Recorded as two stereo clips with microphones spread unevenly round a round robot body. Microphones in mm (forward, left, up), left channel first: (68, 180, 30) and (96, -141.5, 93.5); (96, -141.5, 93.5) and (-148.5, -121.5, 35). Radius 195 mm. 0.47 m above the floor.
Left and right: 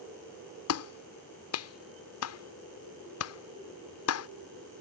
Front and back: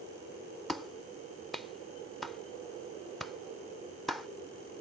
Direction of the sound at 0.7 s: 95° left.